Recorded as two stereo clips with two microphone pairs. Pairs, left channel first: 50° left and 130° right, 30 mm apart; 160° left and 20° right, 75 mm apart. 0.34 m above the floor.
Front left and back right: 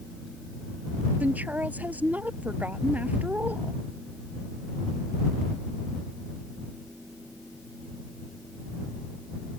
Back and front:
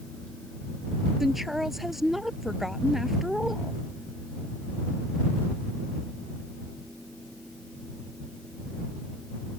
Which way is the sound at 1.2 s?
110° right.